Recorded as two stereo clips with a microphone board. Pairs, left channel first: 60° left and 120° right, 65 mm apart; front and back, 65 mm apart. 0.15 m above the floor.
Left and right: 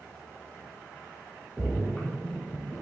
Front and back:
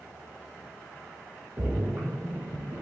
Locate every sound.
1.6 s a splash: 140° left, 2.0 m